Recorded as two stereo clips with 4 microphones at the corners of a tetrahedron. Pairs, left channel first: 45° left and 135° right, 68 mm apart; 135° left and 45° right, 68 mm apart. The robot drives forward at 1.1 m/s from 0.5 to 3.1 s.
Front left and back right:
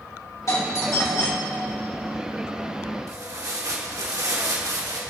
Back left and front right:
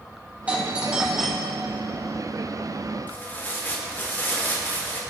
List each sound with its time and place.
0.5 s a doorbell: 20° left, 2.0 m; by 1.7 s 70° left, 1.3 m
3.1 s tearing paper: 165° right, 2.5 m